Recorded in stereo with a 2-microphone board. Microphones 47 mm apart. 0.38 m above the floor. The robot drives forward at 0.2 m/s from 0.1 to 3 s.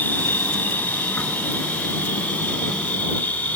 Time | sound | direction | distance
0.0 | an insect | 40° left (ahead or behind) | 1.4 m